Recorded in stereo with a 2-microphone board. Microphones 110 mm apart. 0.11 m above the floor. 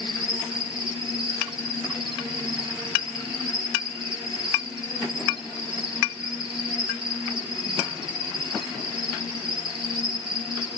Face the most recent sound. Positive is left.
turn(degrees=-45)  # may be behind; listen again after turning